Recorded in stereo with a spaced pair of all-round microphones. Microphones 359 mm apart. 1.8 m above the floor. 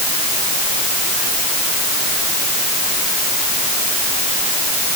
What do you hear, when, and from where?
Only background noise.